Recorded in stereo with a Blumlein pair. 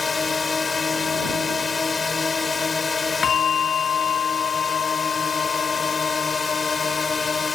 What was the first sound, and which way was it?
A drone, 15° left.